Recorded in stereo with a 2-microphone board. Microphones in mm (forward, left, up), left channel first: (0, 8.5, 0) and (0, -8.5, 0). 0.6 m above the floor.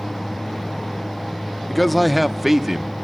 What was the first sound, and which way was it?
A man speaking, 20° left (ahead or behind).